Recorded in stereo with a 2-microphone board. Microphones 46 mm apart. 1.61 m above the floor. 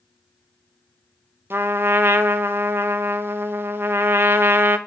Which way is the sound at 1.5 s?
55° right (ahead or behind).